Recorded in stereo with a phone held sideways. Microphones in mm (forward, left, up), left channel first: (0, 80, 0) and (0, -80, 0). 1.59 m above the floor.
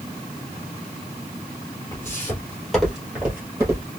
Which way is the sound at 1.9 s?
15° left (ahead or behind).